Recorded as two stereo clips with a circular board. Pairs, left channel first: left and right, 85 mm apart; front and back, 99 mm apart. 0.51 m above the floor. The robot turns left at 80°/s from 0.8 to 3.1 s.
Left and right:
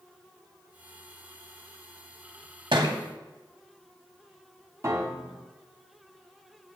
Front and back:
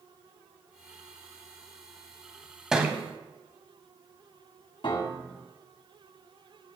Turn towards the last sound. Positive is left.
turn(degrees=-35)